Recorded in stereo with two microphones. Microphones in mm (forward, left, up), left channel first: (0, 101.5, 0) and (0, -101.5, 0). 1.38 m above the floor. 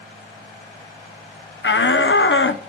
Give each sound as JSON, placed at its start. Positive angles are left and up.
{"t": 1.6, "sound": "a shout", "side_deg": 65, "distance_m": 0.8}